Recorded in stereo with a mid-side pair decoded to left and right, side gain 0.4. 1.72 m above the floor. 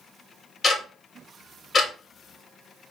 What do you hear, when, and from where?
0.6 s ticking: 35° left, 1.9 m